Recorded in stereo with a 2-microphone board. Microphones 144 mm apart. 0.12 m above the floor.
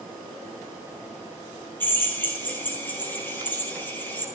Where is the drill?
15° left (ahead or behind), 4.5 m.